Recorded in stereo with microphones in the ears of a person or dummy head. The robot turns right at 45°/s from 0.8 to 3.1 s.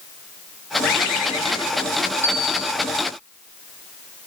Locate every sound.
0.8 s a bird: 115° left, 1.4 m; by 1.9 s 165° left, 1.4 m
2.2 s a bell: 10° left (ahead or behind), 2.5 m; by 2.7 s 10° right (ahead or behind), 2.5 m